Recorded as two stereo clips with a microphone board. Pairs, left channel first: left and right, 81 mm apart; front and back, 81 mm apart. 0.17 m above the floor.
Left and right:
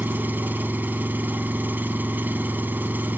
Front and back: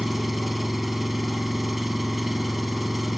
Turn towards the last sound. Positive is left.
turn(degrees=-90)